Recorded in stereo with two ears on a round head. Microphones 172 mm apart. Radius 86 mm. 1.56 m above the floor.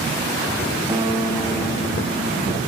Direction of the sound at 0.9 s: 25° right (ahead or behind).